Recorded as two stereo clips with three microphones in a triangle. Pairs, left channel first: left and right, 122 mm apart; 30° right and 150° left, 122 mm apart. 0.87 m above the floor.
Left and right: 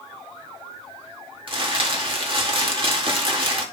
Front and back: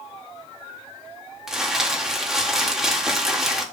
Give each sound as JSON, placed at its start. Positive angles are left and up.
{"t": 1.5, "sound": "crumpling", "azimuth_deg": -125, "distance_m": 1.9}